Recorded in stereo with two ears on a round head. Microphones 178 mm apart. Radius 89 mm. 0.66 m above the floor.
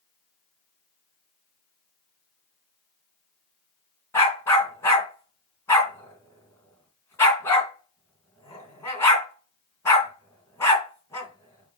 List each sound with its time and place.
4.1 s a dog barking: 15° left (ahead or behind), 3 m